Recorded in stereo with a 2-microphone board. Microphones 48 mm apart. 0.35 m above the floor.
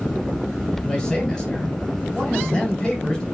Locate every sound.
0.8 s a man speaking: 15° left (ahead or behind), 2 m